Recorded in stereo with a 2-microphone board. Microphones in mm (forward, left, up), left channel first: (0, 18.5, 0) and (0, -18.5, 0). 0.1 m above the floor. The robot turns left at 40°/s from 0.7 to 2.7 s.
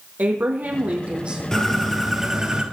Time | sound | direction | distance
0.2 | a woman speaking | 50° right (ahead or behind) | 3.5 m
1.5 | a bird | 20° left | 2.5 m